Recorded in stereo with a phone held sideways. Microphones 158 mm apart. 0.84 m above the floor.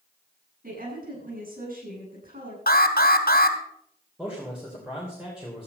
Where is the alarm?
80° left, 2.0 m.